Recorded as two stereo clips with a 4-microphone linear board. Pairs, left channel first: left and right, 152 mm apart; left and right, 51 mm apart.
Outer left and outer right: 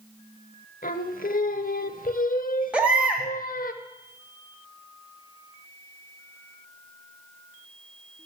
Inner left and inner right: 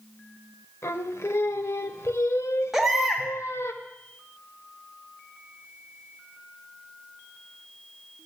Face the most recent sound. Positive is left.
turn(degrees=-10)  # may be behind; listen again after turning